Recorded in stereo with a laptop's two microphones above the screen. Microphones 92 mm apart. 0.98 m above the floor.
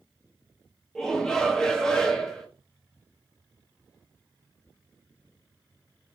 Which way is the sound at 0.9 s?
5° left (ahead or behind).